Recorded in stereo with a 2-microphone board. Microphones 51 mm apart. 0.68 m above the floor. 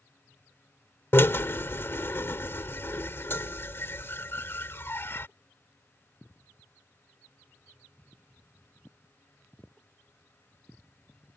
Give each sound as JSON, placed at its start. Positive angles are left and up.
{"t": 1.1, "sound": "a drill", "side_deg": 55}